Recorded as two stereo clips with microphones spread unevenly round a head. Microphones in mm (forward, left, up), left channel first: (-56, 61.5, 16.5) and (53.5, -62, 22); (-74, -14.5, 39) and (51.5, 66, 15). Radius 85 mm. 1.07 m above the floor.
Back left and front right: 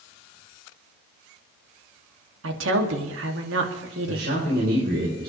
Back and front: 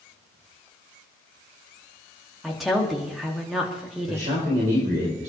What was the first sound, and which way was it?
A woman speaking, 55° right.